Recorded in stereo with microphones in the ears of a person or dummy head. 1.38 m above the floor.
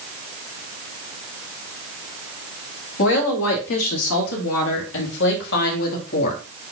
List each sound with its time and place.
3.0 s a woman speaking: 75° left (ahead or behind), 2.5 m; by 6.4 s 45° left (ahead or behind), 2.5 m